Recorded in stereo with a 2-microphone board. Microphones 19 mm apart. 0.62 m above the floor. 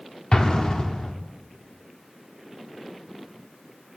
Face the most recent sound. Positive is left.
turn(degrees=50)  # may be behind; listen again after turning